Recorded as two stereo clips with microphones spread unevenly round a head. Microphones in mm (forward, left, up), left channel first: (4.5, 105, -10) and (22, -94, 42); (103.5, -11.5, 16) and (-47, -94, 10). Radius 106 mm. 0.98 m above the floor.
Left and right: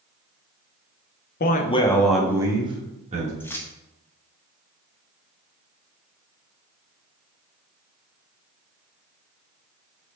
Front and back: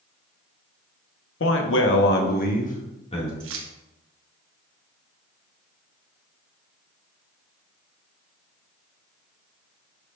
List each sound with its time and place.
1.4 s a man speaking: 55° left, 1.0 m; by 3.3 s 30° right, 2.5 m
3.4 s keys jangling: straight behind, 0.8 m